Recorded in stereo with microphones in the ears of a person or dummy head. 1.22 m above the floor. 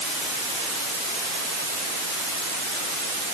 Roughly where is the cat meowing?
I don't hear a cat meowing.